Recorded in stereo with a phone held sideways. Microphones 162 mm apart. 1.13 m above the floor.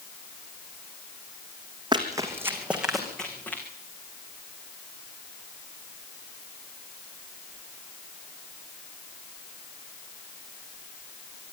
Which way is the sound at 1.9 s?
25° right (ahead or behind).